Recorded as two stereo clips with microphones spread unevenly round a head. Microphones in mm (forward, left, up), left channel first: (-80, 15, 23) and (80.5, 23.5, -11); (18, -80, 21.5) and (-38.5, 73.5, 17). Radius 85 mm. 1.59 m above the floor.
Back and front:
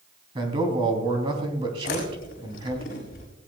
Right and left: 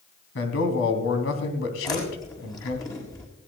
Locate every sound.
0.3 s a man speaking: 60° right, 3 m
1.8 s chewing: 135° right, 5 m